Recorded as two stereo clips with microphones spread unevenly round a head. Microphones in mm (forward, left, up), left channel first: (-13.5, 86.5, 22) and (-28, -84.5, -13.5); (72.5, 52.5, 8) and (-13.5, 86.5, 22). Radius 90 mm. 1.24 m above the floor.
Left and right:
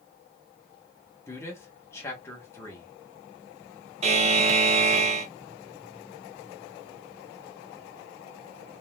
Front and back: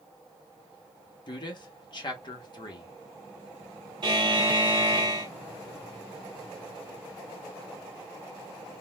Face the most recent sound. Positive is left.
turn(degrees=-140)